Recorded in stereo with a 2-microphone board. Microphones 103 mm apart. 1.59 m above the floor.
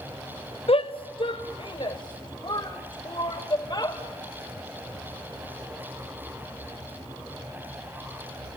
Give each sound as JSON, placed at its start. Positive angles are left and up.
{"t": 0.7, "sound": "a shout", "side_deg": 60, "distance_m": 0.9}